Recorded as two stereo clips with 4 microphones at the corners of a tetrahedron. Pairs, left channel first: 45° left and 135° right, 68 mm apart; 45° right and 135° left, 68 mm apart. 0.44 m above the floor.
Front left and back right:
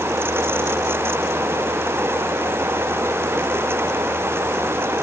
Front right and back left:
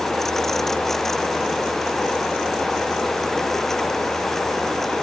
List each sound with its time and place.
Only background noise.